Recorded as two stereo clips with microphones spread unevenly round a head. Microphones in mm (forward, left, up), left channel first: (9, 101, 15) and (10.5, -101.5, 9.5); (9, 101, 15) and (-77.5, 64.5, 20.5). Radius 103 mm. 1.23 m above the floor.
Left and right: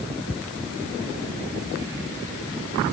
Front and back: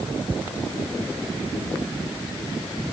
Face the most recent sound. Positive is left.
No sound to turn to.